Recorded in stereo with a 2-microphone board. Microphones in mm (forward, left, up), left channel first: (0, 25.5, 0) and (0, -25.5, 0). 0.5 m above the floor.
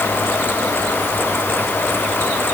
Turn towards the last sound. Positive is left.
No sound to turn to.